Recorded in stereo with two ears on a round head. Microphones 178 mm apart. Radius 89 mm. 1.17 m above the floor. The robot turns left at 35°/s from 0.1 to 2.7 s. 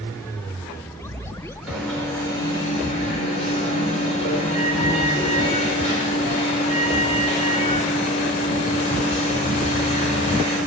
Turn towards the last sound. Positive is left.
turn(degrees=145)